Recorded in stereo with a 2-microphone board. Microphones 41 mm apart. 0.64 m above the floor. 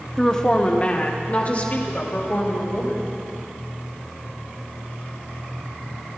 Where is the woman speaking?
10° left (ahead or behind), 1.1 m; by 3.1 s 45° left (ahead or behind), 4.5 m.